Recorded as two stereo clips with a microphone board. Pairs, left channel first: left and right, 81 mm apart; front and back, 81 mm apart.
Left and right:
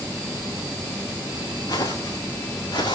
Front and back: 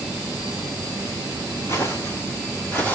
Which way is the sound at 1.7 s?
55° left.